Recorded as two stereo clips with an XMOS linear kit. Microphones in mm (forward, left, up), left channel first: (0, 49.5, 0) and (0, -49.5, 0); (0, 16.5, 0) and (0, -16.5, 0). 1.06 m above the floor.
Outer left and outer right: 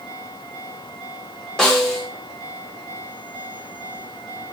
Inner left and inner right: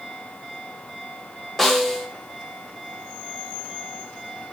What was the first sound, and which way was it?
A snare drum, 5° left (ahead or behind).